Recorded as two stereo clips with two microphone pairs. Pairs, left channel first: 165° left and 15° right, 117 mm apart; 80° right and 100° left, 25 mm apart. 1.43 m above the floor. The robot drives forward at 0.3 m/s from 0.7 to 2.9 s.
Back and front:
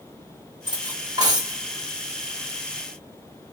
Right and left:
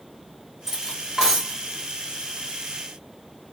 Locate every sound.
0.7 s cutlery clinking: 30° left, 1.6 m; by 1.6 s 35° left, 1.4 m